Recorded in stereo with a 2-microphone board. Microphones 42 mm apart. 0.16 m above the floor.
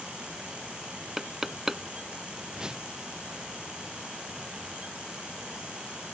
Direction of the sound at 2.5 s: 20° right (ahead or behind).